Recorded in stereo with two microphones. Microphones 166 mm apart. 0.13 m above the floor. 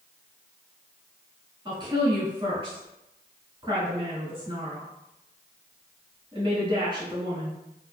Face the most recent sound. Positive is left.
turn(degrees=-30)  # may be behind; listen again after turning